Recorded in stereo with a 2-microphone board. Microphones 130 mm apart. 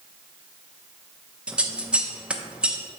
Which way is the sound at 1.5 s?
10° right (ahead or behind).